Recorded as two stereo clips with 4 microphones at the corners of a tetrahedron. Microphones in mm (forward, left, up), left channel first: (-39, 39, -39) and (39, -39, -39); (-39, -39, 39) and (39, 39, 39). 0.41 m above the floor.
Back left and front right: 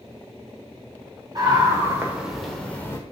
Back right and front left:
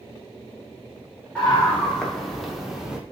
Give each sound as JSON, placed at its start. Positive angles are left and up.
{"t": 1.4, "sound": "a scream", "azimuth_deg": -60, "distance_m": 1.6}